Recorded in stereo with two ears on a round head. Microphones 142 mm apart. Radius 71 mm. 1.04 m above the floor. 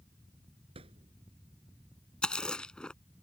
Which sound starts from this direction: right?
A thud, at 0.8 s.